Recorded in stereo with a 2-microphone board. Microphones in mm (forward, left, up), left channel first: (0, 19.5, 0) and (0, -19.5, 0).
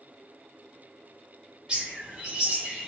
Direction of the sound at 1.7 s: 25° right (ahead or behind).